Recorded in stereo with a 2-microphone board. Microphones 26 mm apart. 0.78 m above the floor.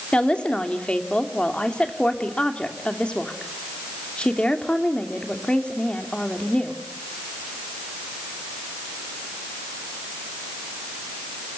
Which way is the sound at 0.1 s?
45° left (ahead or behind).